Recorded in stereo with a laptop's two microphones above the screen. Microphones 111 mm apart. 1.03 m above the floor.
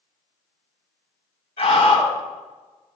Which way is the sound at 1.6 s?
55° left (ahead or behind).